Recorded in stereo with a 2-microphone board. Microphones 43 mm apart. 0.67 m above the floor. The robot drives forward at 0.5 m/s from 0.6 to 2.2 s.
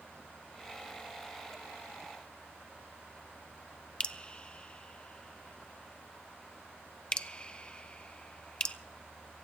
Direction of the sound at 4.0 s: 25° left (ahead or behind).